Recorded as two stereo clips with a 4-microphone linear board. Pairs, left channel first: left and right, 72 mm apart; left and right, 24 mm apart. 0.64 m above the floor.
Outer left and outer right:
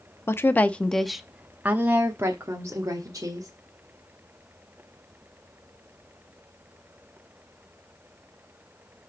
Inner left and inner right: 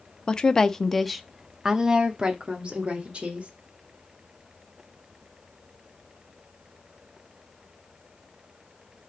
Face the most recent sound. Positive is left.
turn(degrees=-55)  # may be behind; listen again after turning